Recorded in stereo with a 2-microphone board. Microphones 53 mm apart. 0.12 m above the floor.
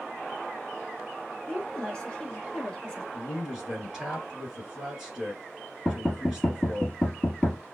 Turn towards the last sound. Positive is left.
turn(degrees=15)  # may be behind; listen again after turning